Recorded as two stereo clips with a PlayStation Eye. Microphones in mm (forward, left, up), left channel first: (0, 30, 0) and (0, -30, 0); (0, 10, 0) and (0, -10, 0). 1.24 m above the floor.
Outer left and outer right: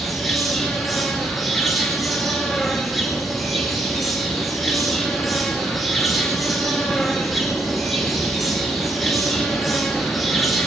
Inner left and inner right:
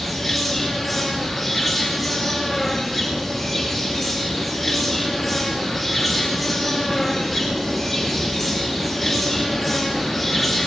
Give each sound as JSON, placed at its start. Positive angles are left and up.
{"t": 0.0, "sound": "an insect", "side_deg": 0, "distance_m": 4.5}